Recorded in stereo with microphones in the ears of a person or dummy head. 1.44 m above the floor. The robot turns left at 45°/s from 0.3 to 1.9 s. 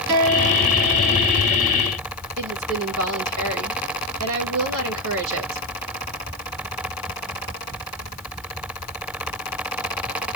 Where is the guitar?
35° right, 3.5 m; by 1.4 s 85° right, 3.5 m.